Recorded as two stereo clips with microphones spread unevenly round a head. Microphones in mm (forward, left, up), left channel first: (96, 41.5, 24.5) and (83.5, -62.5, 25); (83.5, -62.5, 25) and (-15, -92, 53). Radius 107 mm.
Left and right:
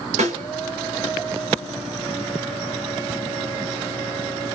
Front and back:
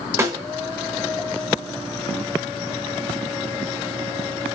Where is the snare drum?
105° right, 6.5 m.